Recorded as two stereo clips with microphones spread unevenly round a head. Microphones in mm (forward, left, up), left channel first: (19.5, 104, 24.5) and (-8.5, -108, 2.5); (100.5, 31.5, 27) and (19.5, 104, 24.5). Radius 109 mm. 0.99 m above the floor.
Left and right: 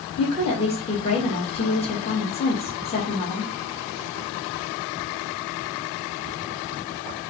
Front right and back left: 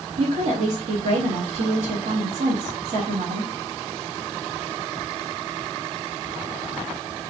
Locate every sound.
0.2 s a woman speaking: 150° left, 1.6 m